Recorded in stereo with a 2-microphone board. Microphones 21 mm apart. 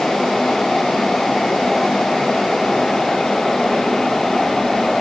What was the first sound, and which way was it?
Only background noise.